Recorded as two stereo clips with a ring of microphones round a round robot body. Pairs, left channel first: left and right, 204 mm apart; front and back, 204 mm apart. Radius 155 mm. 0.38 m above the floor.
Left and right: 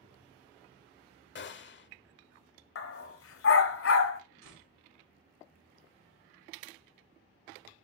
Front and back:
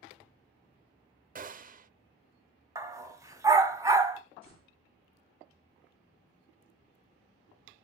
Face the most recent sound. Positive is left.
turn(degrees=-110)